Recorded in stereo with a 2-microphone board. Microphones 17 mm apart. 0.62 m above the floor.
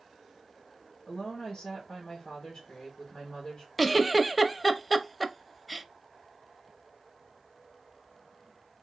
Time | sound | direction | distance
1.1 | a woman speaking | 45° left (ahead or behind) | 2 m
3.8 | a giggle | centre (ahead or behind) | 0.5 m